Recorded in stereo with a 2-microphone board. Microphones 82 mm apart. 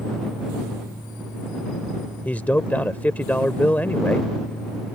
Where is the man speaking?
20° left (ahead or behind).